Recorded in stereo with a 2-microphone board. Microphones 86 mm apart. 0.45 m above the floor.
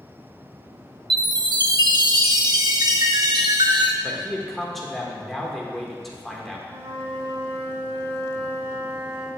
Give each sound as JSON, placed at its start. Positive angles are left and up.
{"t": 1.1, "sound": "a chime", "side_deg": -55, "distance_m": 0.5}
{"t": 4.0, "sound": "a man speaking", "side_deg": 0, "distance_m": 0.8}
{"t": 6.7, "sound": "a flute", "side_deg": -65, "distance_m": 0.9}